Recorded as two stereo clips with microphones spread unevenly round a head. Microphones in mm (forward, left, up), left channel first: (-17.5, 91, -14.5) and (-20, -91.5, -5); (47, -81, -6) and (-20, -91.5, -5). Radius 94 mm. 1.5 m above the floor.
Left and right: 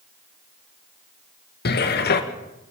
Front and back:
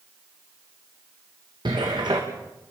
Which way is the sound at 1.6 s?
125° left.